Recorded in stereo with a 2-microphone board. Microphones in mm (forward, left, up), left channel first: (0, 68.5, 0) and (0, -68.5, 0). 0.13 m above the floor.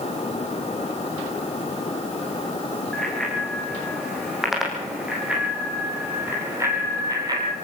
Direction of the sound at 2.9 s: 5° left (ahead or behind).